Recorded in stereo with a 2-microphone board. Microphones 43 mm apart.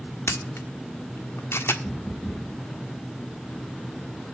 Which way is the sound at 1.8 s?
50° left (ahead or behind).